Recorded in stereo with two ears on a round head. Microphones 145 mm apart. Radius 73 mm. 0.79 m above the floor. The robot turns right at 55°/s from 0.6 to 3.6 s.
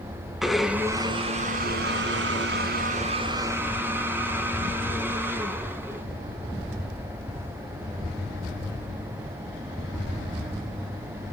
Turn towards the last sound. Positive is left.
turn(degrees=-15)